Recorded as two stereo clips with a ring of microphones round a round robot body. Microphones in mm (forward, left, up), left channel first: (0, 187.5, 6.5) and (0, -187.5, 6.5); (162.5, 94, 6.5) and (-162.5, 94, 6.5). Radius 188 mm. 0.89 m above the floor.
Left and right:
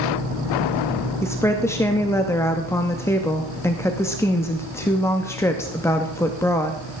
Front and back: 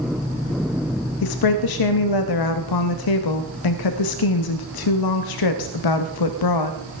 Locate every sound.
1.2 s a woman speaking: 5° left, 0.9 m